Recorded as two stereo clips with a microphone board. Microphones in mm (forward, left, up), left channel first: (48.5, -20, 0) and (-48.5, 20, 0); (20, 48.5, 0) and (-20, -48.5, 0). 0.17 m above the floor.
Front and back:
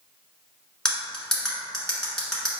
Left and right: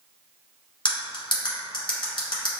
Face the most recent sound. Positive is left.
turn(degrees=60)